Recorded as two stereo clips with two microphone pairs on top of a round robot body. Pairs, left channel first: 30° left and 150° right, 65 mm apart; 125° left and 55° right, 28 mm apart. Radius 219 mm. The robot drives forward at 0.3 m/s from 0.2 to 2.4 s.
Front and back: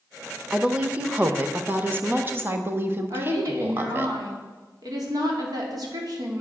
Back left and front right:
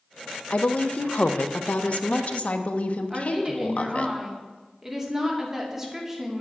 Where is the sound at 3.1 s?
130° right, 3 m.